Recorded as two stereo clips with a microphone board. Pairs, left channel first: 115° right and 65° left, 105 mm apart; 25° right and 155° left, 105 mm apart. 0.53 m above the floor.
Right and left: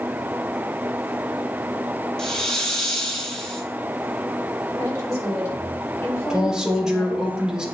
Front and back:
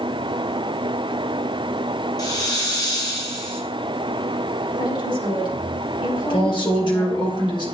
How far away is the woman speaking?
About 3 m.